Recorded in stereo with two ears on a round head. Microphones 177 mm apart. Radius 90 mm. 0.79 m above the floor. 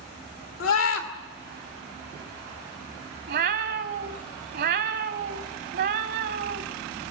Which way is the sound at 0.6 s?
75° left (ahead or behind).